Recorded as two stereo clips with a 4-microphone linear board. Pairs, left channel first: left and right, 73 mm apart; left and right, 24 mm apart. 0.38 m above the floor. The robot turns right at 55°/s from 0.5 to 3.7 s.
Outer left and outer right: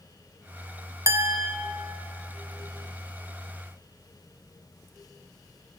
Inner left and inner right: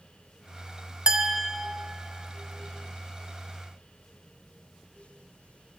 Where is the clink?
45° right (ahead or behind), 0.6 m; by 1.5 s 25° right (ahead or behind), 0.6 m.